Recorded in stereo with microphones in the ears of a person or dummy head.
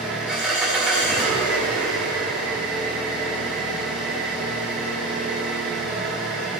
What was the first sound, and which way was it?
An engine running, 5° right (ahead or behind).